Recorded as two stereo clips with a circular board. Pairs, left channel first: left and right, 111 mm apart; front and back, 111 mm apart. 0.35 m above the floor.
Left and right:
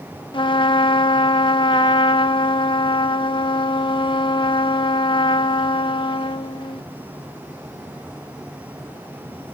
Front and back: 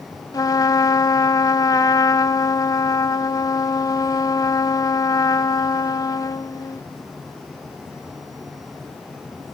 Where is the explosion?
No explosion in this recording.